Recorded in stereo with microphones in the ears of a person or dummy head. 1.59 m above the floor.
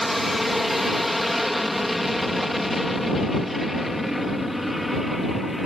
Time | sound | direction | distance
0.0 | an aircraft | 5° left (ahead or behind) | ?